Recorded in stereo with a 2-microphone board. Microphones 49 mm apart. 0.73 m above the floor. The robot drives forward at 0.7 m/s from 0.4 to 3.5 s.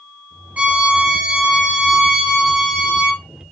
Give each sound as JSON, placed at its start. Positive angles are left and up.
{"t": 0.6, "sound": "a violin", "side_deg": -30, "distance_m": 0.6}